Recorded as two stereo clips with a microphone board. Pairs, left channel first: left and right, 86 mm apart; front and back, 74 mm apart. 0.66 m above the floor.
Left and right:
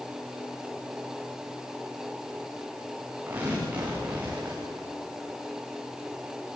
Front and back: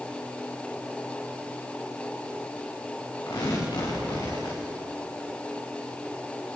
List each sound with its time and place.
3.3 s tearing paper: 20° right, 9.5 m